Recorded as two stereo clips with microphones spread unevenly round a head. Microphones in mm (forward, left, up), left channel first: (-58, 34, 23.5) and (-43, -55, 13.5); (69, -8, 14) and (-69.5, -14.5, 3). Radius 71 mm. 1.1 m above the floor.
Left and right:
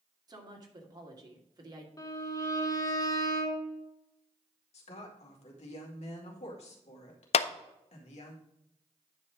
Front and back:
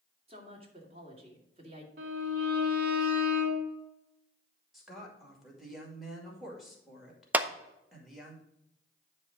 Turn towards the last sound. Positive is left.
turn(degrees=105)